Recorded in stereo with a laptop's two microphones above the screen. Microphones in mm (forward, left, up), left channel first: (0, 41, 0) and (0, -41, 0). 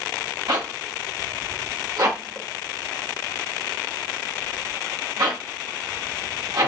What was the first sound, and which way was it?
A zipper, 60° right (ahead or behind).